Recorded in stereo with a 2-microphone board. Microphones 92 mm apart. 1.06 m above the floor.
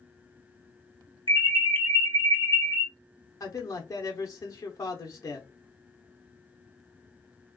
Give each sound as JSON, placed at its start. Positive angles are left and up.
{"t": 1.3, "sound": "an alarm", "side_deg": -70, "distance_m": 1.1}
{"t": 3.4, "sound": "a man speaking", "side_deg": 35, "distance_m": 0.8}